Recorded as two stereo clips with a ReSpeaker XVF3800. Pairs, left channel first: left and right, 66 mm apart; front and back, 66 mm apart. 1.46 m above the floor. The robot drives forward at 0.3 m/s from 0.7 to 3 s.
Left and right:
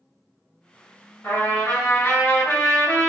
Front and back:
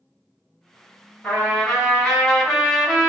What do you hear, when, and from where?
1.2 s a trumpet: 65° left, 1.5 m; by 3.1 s 95° left, 1.4 m